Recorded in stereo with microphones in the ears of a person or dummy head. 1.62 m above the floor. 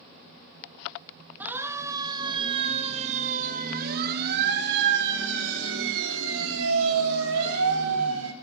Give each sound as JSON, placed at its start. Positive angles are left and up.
{"t": 1.4, "sound": "a siren", "side_deg": -10, "distance_m": 2.5}